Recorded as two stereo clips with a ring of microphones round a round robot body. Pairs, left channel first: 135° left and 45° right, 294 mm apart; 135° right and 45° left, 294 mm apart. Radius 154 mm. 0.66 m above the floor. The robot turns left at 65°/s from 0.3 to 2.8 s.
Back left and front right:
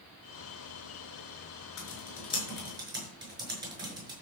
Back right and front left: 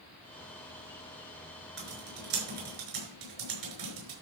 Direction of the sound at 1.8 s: 100° left.